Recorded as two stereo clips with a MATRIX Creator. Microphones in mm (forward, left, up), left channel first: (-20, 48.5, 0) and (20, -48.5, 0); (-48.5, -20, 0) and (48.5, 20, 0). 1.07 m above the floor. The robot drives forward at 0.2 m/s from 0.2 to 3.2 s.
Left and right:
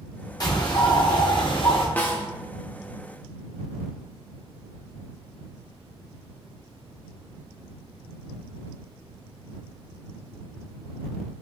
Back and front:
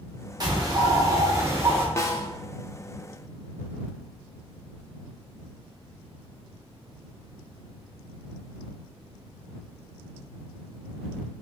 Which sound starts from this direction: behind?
A snare drum, at 2.0 s.